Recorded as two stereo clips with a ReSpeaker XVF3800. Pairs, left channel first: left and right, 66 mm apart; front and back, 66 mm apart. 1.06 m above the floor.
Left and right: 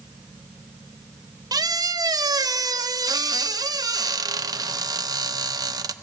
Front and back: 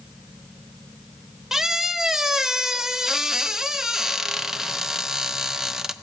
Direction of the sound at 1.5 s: 100° right.